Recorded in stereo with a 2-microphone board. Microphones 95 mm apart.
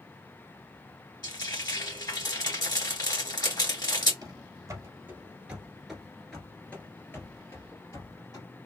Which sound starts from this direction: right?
Running footsteps, at 4.2 s.